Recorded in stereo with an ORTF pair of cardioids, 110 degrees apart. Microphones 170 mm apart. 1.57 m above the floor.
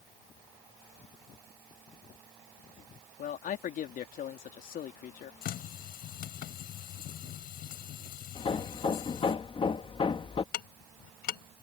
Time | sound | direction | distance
3.2 | a man speaking | 55° left | ?
5.4 | a running tap | 65° left | ?
8.3 | hammering | 30° left | ?
10.5 | ticking | 70° left | ?